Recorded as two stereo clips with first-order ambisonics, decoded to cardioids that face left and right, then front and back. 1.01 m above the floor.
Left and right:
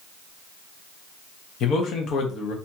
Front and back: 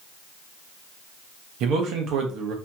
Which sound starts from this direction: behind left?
A man speaking, at 1.6 s.